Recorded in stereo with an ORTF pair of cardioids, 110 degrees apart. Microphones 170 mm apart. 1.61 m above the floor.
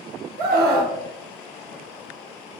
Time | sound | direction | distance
0.4 | a scream | 65° right | 1.2 m